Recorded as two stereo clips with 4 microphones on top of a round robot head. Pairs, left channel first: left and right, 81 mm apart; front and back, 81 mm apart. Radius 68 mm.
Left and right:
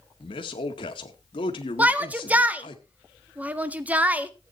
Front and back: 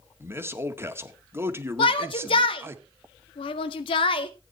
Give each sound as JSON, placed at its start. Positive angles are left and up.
{"t": 0.2, "sound": "a man speaking", "azimuth_deg": 120, "distance_m": 1.8}
{"t": 1.8, "sound": "a shout", "azimuth_deg": -20, "distance_m": 1.7}